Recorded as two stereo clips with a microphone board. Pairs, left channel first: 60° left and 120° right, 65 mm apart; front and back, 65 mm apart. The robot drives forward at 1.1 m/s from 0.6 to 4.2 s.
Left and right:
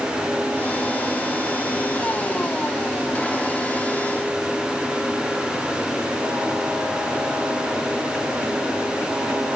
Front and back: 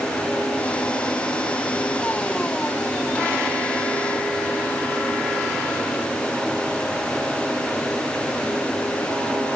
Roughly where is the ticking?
I don't hear ticking.